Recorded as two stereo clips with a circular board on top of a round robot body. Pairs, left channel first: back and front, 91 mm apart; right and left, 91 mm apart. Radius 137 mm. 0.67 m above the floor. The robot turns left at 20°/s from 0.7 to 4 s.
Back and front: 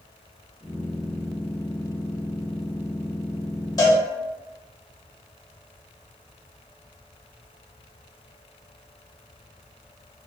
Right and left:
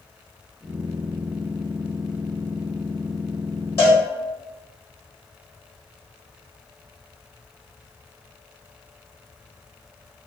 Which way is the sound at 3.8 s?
140° right.